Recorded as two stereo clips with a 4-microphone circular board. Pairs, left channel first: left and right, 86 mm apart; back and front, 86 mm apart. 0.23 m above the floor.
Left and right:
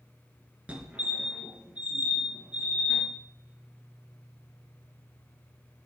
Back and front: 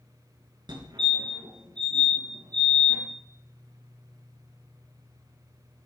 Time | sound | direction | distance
0.7 | a fire alarm | 20° right | 5 m